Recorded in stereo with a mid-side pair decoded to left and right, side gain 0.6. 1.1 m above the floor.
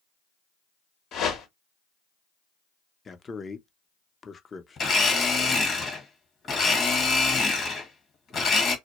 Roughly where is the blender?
Ahead left.